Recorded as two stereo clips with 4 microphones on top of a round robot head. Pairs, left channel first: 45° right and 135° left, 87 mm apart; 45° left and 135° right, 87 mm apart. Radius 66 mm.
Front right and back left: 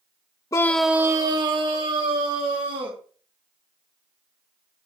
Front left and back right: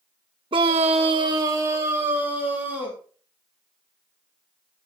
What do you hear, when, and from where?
0.5 s a scream: 100° right, 0.8 m; by 3.0 s 155° left, 3.5 m